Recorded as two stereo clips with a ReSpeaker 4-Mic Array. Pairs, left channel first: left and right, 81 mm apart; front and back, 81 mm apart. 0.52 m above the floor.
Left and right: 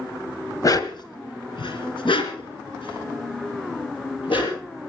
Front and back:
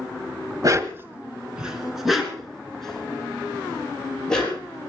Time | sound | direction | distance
0.6 | a dog barking | 135° left | 1.2 m